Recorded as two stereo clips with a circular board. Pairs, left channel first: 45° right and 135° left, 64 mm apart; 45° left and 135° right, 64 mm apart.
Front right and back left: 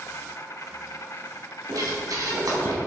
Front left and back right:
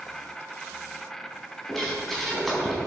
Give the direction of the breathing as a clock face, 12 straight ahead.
8 o'clock.